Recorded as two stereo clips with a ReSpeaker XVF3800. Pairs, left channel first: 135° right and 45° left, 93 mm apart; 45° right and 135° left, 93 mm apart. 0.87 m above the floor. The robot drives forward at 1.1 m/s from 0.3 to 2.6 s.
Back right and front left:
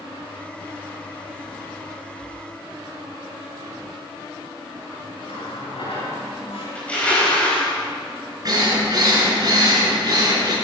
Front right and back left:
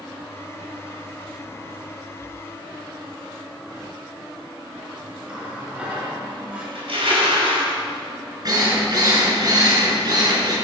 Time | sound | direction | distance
5.3 | a running tap | 150° right | 7.5 m
6.8 | crushing | 150° left | 5 m
8.4 | a drill | 90° left | 4.5 m